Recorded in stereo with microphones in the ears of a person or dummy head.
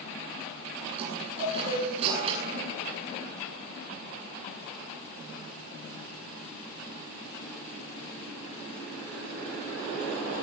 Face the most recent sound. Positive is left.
turn(degrees=-30)  # may be behind; listen again after turning